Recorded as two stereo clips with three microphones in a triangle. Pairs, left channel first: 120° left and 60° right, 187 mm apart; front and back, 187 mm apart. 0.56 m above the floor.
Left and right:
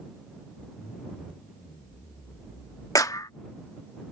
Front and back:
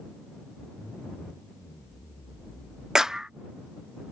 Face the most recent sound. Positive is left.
turn(degrees=100)